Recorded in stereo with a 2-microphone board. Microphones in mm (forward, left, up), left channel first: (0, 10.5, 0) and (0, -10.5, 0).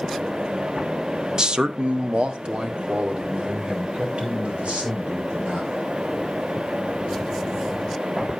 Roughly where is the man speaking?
Right.